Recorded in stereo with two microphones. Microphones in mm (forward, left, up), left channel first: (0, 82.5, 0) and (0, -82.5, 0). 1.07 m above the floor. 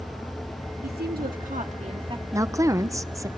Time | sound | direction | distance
0.8 | a woman speaking | 65° right (ahead or behind) | 2 m
2.3 | a woman speaking | 20° right (ahead or behind) | 0.7 m